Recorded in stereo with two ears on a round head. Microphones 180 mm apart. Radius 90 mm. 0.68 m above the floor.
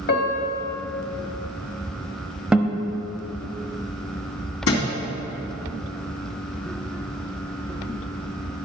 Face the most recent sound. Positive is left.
turn(degrees=75)  # may be behind; listen again after turning